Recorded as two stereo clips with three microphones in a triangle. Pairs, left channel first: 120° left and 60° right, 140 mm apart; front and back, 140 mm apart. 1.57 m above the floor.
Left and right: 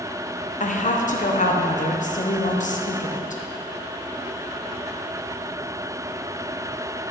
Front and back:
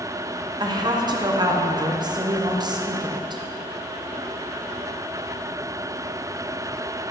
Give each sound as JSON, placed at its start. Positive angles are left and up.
{"t": 0.6, "sound": "a woman speaking", "azimuth_deg": 125, "distance_m": 0.7}